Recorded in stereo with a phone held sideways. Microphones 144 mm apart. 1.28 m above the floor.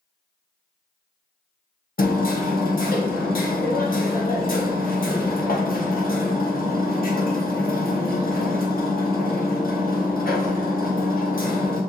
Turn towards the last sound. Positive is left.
turn(degrees=70)  # may be behind; listen again after turning